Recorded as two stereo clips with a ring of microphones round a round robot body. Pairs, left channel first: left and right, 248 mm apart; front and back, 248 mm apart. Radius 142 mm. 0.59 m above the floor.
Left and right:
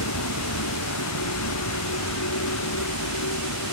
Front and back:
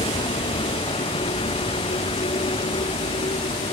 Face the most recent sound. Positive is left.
turn(degrees=70)